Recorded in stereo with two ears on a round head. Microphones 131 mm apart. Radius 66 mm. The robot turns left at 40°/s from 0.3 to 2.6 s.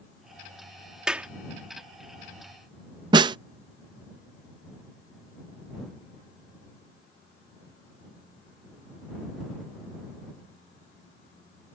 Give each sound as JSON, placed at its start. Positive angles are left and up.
{"t": 1.1, "sound": "a clap", "side_deg": -5}
{"t": 3.1, "sound": "a snare drum", "side_deg": -30}